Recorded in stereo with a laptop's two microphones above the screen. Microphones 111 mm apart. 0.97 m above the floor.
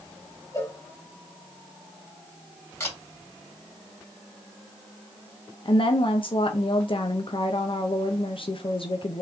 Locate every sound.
0.5 s a cowbell: 30° left (ahead or behind), 1.6 m
2.8 s a camera shutter: 25° left (ahead or behind), 2.5 m
5.7 s a woman speaking: 50° left (ahead or behind), 0.5 m